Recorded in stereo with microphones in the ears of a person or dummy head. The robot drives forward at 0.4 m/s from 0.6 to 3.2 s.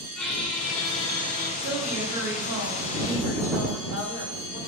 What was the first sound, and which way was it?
A squeak, 10° left (ahead or behind).